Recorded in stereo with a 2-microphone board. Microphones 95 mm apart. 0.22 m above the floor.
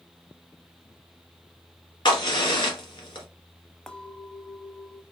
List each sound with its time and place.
2.0 s a crack: 60° left (ahead or behind), 1.6 m
3.9 s a clink: 5° left (ahead or behind), 0.6 m